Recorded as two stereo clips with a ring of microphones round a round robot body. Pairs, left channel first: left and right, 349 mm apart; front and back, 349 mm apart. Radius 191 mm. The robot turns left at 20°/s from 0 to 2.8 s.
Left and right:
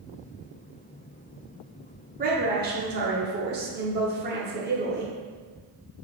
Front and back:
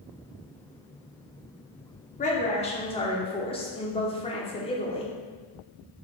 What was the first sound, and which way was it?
A woman speaking, 50° right.